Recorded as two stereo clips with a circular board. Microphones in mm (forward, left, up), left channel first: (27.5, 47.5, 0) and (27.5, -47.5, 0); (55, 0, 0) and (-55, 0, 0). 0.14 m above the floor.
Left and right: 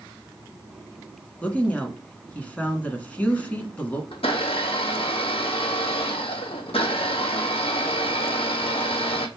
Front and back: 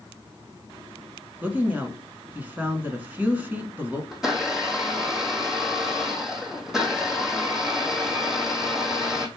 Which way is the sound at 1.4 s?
135° left.